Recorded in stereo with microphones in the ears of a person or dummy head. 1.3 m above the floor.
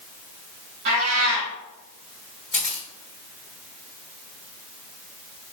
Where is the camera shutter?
Centre (ahead or behind), 1.5 m.